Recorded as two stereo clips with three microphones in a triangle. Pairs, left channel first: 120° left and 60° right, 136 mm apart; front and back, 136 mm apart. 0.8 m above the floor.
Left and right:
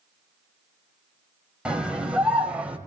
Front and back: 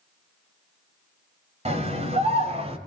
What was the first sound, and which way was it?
A scream, 145° right.